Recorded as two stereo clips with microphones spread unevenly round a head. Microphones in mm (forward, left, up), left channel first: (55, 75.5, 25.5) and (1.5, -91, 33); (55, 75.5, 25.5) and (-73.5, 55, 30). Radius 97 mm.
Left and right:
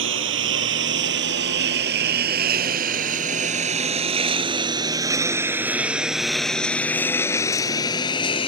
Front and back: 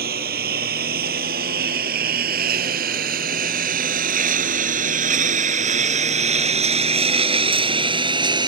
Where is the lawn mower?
135° right; by 8.5 s 135° left.